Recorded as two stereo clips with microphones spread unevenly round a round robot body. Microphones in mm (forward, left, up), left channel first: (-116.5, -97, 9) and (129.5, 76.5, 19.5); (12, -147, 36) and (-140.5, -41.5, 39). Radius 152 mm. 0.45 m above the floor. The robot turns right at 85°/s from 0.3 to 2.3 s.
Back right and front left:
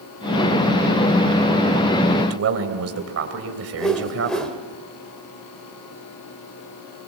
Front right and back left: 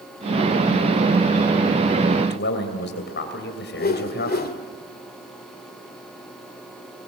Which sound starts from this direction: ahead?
A man speaking, at 2.2 s.